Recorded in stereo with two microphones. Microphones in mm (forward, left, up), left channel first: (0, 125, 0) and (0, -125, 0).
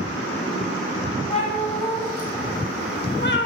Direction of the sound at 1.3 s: 25° left (ahead or behind).